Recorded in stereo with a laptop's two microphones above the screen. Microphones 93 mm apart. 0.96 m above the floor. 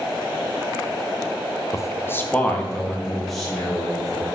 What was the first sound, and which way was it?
A man speaking, 35° left (ahead or behind).